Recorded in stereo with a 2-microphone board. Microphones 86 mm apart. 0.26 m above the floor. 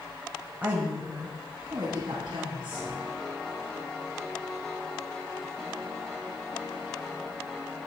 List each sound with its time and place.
0.6 s a woman speaking: 20° right (ahead or behind), 0.9 m; by 3.0 s 65° right (ahead or behind), 2.5 m
2.7 s a piano: 5° left (ahead or behind), 1.5 m